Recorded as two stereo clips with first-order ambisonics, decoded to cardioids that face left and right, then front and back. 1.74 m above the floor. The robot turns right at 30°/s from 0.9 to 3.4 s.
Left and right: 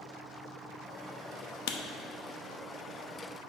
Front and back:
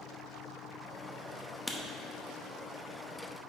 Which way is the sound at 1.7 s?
80° left.